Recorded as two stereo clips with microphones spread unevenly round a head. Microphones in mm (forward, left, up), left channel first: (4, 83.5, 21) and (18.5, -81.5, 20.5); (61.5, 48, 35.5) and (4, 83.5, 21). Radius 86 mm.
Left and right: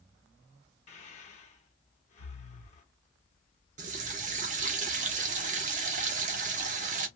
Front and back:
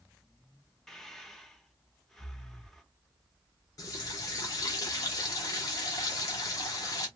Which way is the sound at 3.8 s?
50° right.